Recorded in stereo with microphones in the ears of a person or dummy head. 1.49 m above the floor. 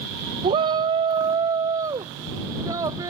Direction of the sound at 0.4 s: 35° right (ahead or behind).